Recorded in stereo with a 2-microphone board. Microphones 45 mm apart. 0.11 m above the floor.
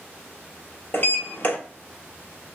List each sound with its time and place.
0.9 s a sliding door: 45° left (ahead or behind), 1.1 m